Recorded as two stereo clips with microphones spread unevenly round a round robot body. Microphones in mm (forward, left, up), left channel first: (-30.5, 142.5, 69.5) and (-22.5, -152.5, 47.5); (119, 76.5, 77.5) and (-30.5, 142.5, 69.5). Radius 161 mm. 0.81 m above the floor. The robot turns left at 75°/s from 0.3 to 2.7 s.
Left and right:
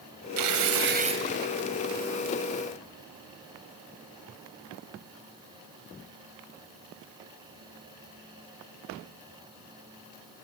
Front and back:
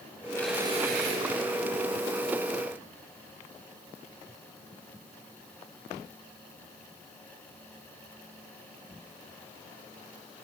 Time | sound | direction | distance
0.4 | tearing paper | 105° right | 1.3 m